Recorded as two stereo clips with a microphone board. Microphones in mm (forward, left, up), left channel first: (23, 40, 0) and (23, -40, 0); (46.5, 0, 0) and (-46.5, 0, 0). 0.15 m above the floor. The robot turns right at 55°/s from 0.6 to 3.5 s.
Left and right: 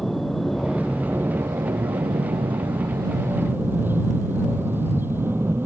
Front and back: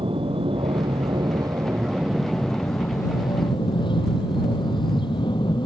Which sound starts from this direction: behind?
An aircraft, at 0.0 s.